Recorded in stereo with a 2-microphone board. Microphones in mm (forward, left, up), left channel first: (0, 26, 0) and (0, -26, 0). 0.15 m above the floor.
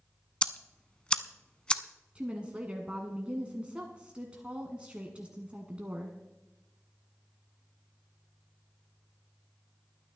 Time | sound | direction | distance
0.4 | ticking | 15° left (ahead or behind) | 0.5 m
2.1 | a woman speaking | 20° right (ahead or behind) | 1.3 m